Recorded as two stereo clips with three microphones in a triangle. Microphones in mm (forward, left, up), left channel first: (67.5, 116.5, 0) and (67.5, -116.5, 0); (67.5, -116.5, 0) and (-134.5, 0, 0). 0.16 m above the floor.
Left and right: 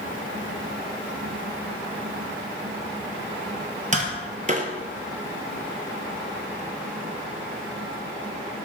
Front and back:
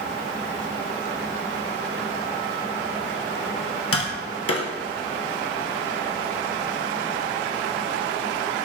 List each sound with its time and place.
3.9 s tapping: 30° right, 0.7 m